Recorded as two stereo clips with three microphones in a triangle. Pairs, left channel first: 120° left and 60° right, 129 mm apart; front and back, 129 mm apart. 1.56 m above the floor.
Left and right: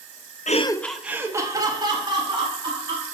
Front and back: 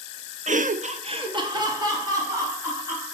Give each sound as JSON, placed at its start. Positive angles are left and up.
{"t": 0.5, "sound": "laughter", "azimuth_deg": 145, "distance_m": 0.5}